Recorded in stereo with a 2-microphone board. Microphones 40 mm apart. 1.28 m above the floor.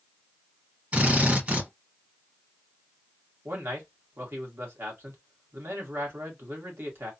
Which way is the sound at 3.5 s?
65° right (ahead or behind).